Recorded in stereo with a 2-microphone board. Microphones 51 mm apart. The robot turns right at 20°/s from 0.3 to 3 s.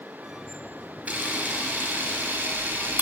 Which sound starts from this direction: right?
A camera shutter, at 1.1 s.